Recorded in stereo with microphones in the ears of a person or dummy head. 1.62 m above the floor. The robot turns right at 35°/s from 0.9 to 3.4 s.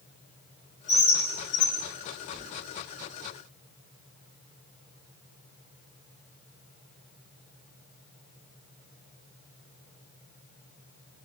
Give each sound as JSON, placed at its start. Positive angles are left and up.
{"t": 0.9, "sound": "a bird", "side_deg": 30, "distance_m": 0.8}
{"t": 2.3, "sound": "a thud", "side_deg": 30, "distance_m": 2.5}